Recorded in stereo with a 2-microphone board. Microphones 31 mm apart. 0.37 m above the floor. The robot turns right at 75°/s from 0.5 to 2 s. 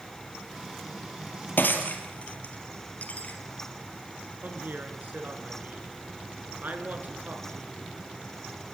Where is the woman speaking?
55° right (ahead or behind), 4.5 m.